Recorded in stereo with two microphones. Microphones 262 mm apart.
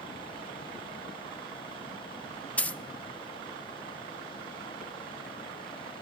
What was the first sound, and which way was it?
A dropped coin, 5° left (ahead or behind).